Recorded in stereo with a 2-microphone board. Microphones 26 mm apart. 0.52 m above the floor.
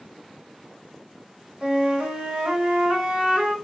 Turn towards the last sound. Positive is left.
turn(degrees=-35)  # may be behind; listen again after turning